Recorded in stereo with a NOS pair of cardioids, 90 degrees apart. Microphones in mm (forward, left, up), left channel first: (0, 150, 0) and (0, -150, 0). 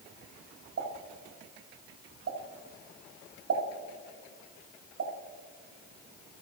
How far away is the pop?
About 2.5 m.